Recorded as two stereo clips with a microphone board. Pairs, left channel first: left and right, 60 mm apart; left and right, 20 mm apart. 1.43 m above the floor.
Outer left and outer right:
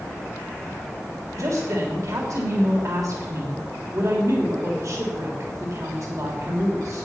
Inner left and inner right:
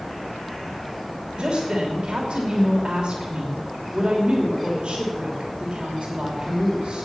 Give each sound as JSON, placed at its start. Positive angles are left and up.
{"t": 1.3, "sound": "a woman speaking", "side_deg": -65, "distance_m": 3.0}